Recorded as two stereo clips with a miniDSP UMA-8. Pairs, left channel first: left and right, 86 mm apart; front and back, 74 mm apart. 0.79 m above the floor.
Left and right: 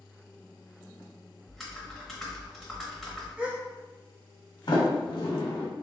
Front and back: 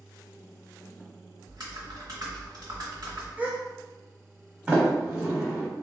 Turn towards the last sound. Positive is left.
turn(degrees=110)